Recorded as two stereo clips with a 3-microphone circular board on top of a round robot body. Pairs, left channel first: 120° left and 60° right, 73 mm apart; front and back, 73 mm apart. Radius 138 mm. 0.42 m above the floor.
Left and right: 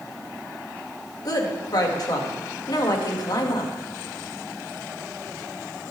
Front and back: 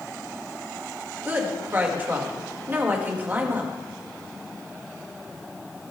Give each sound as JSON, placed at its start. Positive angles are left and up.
{"t": 1.2, "sound": "a woman speaking", "azimuth_deg": 120, "distance_m": 2.0}